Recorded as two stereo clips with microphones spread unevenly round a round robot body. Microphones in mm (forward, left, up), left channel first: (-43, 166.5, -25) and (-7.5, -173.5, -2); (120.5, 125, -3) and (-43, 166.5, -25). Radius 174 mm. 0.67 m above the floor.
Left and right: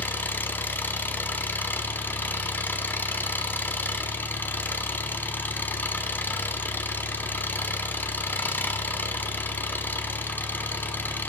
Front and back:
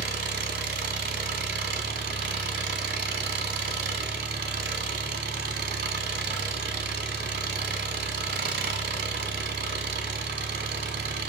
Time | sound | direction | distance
0.0 | an engine running | straight behind | 1.2 m